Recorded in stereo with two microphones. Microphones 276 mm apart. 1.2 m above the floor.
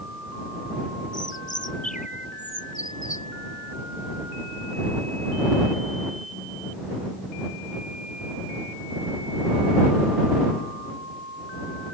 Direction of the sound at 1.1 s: 30° left (ahead or behind).